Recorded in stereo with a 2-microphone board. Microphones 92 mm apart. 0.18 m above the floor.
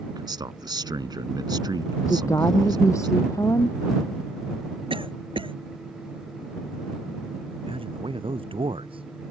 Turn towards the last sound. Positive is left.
turn(degrees=-65)  # may be behind; listen again after turning